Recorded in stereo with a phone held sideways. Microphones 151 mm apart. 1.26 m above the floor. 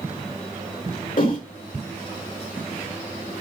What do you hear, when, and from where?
1.2 s a whoosh: 70° left (ahead or behind), 4 m